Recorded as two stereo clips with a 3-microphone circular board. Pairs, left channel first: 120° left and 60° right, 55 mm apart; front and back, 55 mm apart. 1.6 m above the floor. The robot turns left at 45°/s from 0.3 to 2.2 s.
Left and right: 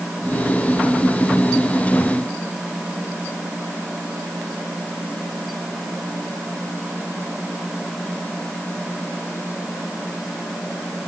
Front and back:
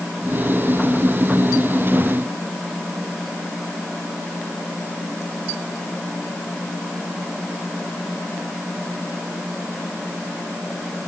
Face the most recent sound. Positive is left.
No sound to turn to.